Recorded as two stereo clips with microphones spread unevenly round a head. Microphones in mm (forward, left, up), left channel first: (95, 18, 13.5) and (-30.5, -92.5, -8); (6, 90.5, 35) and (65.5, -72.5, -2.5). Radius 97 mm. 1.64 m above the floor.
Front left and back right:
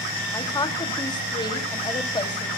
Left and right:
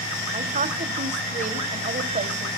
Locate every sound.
0.3 s a woman speaking: 20° right, 2.5 m